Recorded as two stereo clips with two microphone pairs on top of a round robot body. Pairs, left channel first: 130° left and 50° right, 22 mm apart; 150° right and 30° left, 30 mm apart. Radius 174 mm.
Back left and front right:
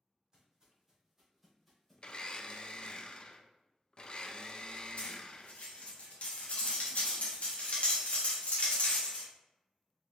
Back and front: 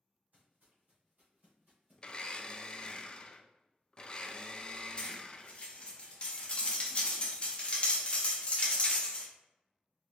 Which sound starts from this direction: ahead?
Footsteps, at 0.3 s.